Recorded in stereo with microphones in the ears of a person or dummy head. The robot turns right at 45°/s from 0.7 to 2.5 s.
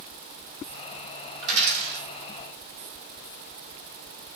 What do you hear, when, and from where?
1.4 s a dropped coin: 40° right (ahead or behind), 0.9 m; by 2.0 s 25° right (ahead or behind), 0.9 m